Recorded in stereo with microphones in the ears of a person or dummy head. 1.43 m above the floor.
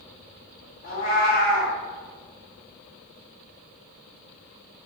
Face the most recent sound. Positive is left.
turn(degrees=50)  # may be behind; listen again after turning